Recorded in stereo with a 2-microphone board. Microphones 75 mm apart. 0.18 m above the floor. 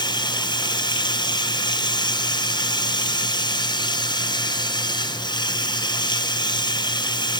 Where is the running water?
85° left, 2.0 m.